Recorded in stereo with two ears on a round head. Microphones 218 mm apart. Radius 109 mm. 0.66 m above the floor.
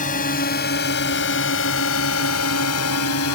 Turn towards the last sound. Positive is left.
turn(degrees=75)  # may be behind; listen again after turning